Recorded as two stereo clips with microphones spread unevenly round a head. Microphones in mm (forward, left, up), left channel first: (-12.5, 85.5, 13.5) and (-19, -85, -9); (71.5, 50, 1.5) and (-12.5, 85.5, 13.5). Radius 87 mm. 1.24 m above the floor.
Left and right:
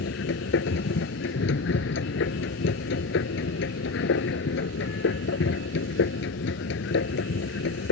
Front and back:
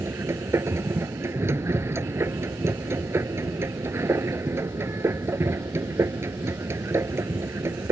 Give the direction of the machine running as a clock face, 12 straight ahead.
9 o'clock.